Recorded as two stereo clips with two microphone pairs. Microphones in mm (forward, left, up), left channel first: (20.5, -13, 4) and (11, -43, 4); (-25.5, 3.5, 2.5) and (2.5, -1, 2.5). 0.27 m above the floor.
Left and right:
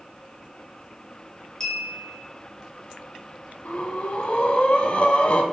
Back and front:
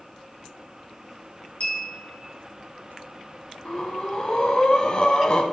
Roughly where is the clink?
Behind left.